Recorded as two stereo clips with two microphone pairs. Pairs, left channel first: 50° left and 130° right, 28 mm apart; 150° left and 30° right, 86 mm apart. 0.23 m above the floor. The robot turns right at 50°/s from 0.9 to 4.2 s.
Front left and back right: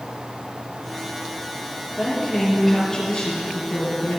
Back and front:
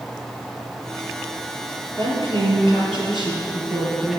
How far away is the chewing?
I don't hear chewing.